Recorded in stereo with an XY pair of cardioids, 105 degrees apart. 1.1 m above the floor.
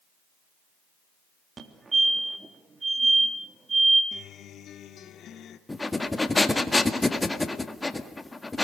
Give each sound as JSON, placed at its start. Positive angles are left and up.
{"t": 1.6, "sound": "a fire alarm", "azimuth_deg": -30, "distance_m": 3.5}
{"t": 4.1, "sound": "a guitar", "azimuth_deg": 65, "distance_m": 1.9}
{"t": 5.7, "sound": "breathing", "azimuth_deg": 15, "distance_m": 1.9}